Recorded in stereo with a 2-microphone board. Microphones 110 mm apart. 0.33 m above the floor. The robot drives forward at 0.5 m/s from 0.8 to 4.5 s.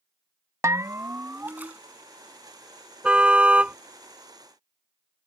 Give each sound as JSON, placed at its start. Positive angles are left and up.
{"t": 0.6, "sound": "a bell", "side_deg": -30}
{"t": 3.0, "sound": "a car horn", "side_deg": -10}